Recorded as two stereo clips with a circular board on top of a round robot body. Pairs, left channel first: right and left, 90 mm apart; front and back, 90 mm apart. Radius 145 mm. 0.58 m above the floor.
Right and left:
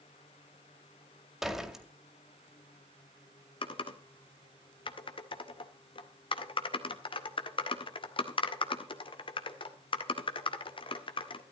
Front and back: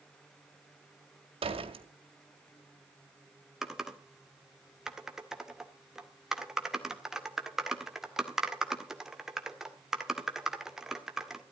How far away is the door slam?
About 2 m.